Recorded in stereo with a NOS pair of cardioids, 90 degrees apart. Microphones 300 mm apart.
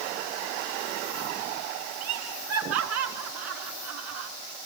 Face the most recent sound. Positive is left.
turn(degrees=-65)